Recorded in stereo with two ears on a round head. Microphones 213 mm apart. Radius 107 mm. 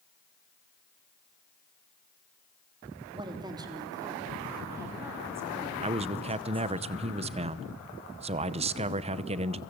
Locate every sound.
3.1 s a woman speaking: 20° right (ahead or behind), 3 m; by 6.8 s 10° right (ahead or behind), 6 m
5.8 s a man speaking: 25° right (ahead or behind), 0.9 m